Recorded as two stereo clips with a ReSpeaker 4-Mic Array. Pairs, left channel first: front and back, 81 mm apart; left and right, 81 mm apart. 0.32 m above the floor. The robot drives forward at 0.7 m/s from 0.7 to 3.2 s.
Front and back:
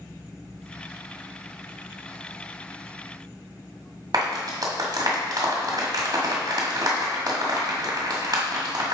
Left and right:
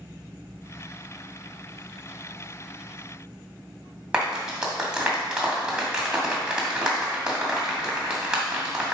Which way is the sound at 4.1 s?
165° right.